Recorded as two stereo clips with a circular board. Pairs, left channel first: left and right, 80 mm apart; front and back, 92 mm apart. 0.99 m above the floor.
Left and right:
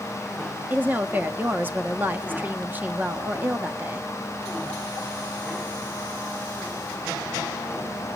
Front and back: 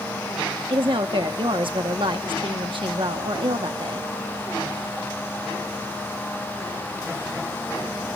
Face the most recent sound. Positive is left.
turn(degrees=-155)